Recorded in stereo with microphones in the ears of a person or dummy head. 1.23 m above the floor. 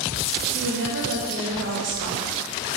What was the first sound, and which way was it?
A woman speaking, 55° right (ahead or behind).